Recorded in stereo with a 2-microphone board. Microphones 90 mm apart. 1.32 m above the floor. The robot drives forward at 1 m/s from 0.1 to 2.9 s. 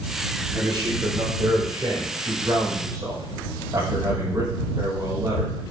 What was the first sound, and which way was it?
A man speaking, 60° right (ahead or behind).